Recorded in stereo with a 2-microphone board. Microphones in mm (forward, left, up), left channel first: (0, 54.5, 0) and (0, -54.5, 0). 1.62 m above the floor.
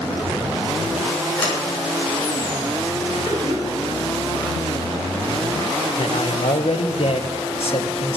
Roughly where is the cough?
Centre.